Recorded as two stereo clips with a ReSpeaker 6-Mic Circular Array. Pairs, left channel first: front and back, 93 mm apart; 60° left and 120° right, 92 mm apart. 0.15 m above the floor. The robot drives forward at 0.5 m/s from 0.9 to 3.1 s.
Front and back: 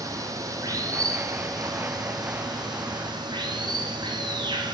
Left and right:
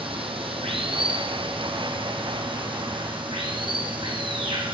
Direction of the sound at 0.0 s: 130° right.